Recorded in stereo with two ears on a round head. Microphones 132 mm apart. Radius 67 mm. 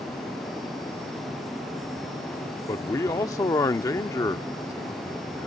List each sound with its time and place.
2.7 s a man speaking: 20° left (ahead or behind)